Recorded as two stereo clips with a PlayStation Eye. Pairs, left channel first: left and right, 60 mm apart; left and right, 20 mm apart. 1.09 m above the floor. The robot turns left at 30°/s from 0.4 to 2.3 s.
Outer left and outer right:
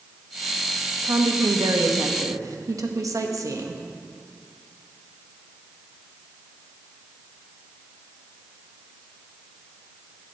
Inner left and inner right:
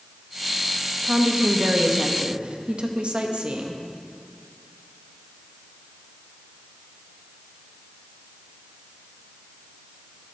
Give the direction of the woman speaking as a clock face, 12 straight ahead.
3 o'clock.